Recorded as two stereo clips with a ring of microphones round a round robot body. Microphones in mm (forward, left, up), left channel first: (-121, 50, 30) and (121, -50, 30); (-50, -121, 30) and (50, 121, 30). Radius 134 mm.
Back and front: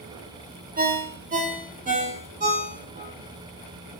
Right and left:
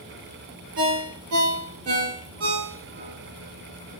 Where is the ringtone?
35° left, 0.9 m.